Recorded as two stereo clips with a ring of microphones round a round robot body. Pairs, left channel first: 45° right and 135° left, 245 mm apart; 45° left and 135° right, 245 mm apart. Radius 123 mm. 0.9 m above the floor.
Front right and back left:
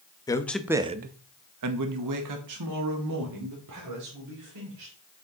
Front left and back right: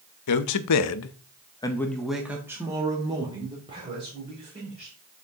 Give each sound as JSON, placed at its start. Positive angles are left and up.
{"t": 0.3, "sound": "a man speaking", "azimuth_deg": 30, "distance_m": 0.8}